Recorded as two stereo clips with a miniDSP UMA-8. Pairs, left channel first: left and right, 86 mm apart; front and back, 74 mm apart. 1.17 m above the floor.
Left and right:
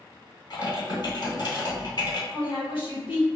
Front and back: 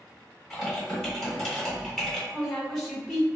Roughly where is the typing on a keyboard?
Left.